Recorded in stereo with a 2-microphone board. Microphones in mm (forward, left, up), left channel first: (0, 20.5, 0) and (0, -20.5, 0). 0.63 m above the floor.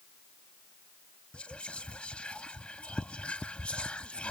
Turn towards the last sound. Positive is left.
turn(degrees=25)  # may be behind; listen again after turning